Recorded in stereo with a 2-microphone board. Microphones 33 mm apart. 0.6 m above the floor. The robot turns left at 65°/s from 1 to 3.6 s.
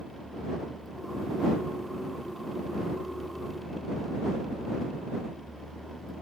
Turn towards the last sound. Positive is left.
No sound to turn to.